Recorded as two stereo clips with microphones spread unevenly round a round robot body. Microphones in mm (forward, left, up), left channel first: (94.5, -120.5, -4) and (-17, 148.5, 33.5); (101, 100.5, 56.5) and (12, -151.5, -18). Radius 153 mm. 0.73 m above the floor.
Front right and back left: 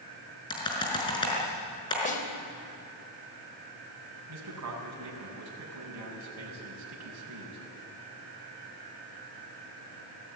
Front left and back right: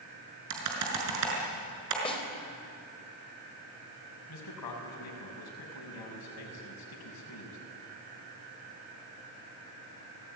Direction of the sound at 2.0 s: 5° right.